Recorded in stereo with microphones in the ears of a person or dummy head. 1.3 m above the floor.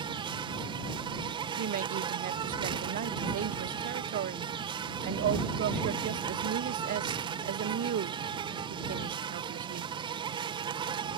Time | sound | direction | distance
0.0 | an insect | 25° right (ahead or behind) | ?
1.6 | a woman speaking | 45° right (ahead or behind) | ?